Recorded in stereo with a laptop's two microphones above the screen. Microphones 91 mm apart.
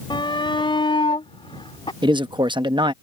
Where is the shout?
60° left (ahead or behind); by 1.9 s 75° left (ahead or behind).